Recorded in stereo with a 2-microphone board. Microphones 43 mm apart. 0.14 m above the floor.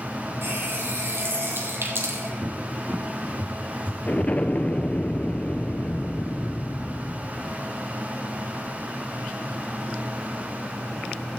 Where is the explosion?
35° left (ahead or behind), 0.9 m.